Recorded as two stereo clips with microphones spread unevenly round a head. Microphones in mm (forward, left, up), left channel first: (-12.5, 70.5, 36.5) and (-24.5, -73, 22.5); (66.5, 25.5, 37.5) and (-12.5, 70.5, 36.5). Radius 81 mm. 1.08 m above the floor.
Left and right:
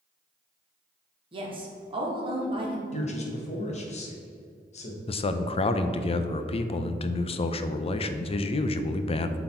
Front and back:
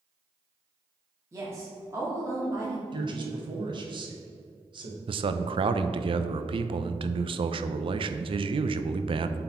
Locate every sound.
1.3 s a woman speaking: 145° right, 1.8 m
2.9 s a man speaking: 125° left, 1.5 m
5.1 s a man speaking: 135° left, 0.5 m